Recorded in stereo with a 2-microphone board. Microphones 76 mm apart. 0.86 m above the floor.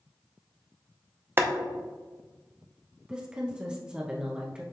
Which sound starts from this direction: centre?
A woman speaking, at 3.1 s.